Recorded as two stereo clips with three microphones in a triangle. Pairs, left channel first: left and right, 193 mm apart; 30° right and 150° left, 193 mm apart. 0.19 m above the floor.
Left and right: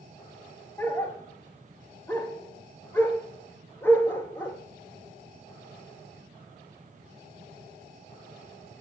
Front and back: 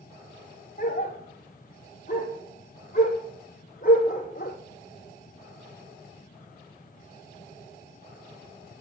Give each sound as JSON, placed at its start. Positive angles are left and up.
{"t": 0.8, "sound": "a dog barking", "azimuth_deg": 10, "distance_m": 0.9}